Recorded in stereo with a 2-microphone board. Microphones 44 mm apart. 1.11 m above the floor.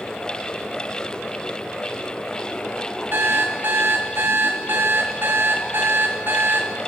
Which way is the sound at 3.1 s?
45° right (ahead or behind).